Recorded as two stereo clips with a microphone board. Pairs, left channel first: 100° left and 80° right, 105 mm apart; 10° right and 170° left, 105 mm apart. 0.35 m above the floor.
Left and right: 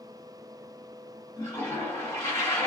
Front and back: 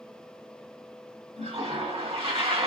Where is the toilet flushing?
165° left, 2 m.